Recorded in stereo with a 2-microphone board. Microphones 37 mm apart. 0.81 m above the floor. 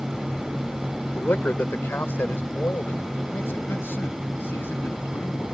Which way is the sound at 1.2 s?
70° left (ahead or behind).